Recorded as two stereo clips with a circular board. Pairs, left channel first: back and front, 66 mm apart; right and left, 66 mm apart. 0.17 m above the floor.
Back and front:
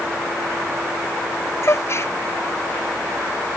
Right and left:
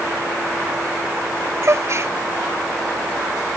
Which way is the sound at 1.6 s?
135° left.